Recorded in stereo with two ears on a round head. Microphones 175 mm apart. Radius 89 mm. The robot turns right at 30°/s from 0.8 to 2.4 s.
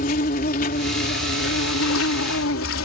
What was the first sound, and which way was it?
An insect, 45° left.